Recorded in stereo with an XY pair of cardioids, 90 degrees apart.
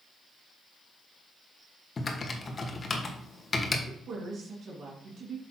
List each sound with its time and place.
2.0 s typing on a keyboard: 35° left, 1.5 m
3.9 s a woman speaking: 65° right, 3 m